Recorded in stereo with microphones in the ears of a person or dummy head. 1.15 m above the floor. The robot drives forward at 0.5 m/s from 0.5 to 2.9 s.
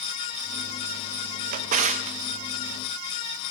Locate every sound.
1.5 s a drawer: 45° right (ahead or behind), 0.7 m; by 2.2 s 30° right (ahead or behind), 0.9 m